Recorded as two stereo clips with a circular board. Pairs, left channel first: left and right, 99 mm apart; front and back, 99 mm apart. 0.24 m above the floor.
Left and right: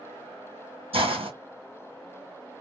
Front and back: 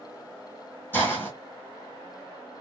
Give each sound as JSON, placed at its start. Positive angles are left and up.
{"t": 0.9, "sound": "a hiss", "azimuth_deg": -70, "distance_m": 1.4}